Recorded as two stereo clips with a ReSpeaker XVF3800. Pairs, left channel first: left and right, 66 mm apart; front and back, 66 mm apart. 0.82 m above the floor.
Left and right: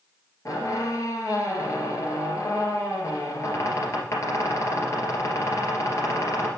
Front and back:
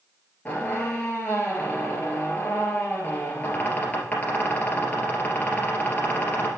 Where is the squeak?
65° left, 2.5 m.